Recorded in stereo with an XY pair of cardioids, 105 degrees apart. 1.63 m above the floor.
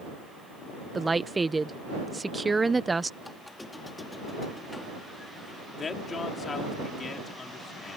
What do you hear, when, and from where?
0.9 s a woman speaking: 15° right
3.2 s a squeak: 15° left
5.8 s a man speaking: 40° left